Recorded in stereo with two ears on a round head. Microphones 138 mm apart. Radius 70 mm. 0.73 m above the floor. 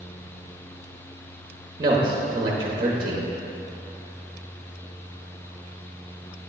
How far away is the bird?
I don't hear a bird.